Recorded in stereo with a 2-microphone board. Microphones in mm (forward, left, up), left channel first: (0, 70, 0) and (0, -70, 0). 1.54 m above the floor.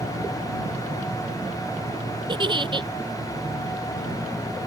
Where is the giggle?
35° right (ahead or behind).